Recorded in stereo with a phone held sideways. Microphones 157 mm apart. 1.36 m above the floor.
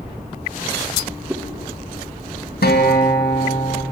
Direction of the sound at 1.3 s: 15° right (ahead or behind).